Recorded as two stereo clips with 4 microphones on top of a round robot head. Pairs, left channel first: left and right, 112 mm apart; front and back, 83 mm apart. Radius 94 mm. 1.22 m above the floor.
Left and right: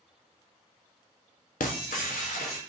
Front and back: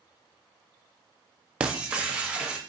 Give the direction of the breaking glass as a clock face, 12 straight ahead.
8 o'clock.